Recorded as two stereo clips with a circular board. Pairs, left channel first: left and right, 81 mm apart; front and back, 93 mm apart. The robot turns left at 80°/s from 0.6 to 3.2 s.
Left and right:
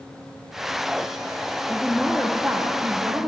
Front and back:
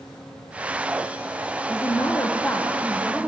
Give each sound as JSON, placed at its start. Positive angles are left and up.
{"t": 1.7, "sound": "a woman speaking", "azimuth_deg": 20, "distance_m": 0.9}